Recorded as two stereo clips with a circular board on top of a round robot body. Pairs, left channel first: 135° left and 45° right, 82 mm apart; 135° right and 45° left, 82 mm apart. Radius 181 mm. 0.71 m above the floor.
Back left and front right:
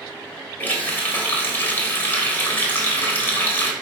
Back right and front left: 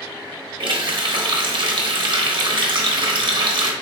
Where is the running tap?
70° left, 0.9 m.